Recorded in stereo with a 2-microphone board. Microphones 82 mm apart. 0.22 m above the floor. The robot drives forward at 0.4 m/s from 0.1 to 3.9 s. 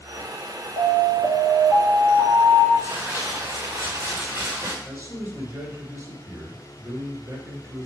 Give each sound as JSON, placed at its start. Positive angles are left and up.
{"t": 0.8, "sound": "an alarm", "side_deg": -50, "distance_m": 2.0}
{"t": 2.8, "sound": "crumpling", "side_deg": -40, "distance_m": 4.5}
{"t": 4.8, "sound": "a man speaking", "side_deg": -35, "distance_m": 2.5}